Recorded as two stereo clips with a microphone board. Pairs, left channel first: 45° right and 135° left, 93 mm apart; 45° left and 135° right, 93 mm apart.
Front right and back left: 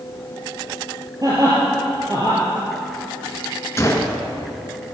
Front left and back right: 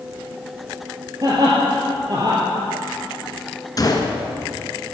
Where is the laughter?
Straight behind, 3.5 m.